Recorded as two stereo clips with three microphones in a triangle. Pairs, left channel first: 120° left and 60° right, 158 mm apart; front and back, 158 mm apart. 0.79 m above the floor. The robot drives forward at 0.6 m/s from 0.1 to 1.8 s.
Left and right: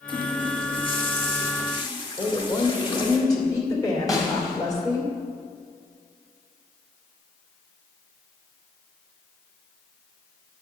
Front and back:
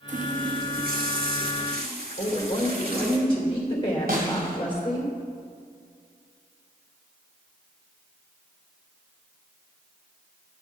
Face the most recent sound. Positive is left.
turn(degrees=-170)